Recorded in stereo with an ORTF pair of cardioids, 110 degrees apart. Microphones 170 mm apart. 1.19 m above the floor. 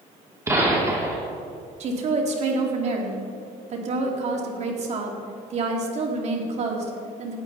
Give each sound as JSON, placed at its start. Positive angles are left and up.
{"t": 0.5, "sound": "a gunshot", "azimuth_deg": -15, "distance_m": 3.0}
{"t": 1.8, "sound": "a woman speaking", "azimuth_deg": -45, "distance_m": 2.5}